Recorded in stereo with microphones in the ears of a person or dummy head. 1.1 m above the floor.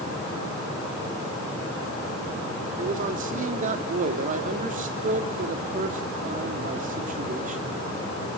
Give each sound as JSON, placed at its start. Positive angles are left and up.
{"t": 2.8, "sound": "a man speaking", "side_deg": -45, "distance_m": 2.5}